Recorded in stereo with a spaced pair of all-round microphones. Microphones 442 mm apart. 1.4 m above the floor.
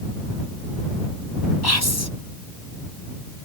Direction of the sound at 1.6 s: 55° left (ahead or behind).